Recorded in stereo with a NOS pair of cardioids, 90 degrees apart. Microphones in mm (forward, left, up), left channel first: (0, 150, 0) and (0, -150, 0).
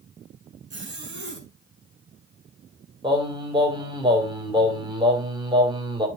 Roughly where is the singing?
Ahead.